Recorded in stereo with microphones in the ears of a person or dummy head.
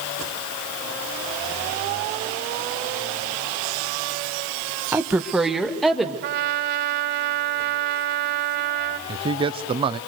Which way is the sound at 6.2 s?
60° right (ahead or behind).